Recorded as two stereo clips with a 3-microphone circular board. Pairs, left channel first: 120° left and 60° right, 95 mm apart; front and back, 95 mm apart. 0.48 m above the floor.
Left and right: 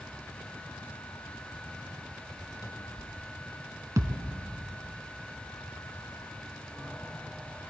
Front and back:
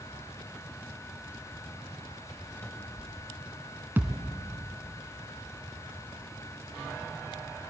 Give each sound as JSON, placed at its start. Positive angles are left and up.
{"t": 2.6, "sound": "a cupboard door", "azimuth_deg": 70, "distance_m": 0.9}
{"t": 4.0, "sound": "a thud", "azimuth_deg": -110, "distance_m": 1.1}